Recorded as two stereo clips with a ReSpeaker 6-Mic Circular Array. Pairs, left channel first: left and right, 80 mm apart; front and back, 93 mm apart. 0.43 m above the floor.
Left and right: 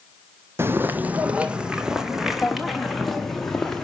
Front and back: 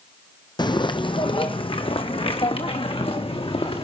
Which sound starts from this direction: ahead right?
Footsteps, at 0.6 s.